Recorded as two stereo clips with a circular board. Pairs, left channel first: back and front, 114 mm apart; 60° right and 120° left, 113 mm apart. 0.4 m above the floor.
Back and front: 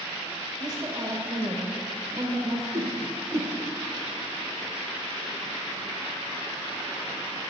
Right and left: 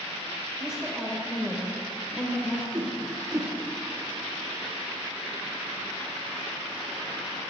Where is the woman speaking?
40° left, 1.2 m.